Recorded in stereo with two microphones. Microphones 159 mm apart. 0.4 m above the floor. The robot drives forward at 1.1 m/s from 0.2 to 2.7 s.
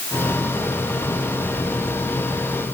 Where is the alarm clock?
No alarm clock in this recording.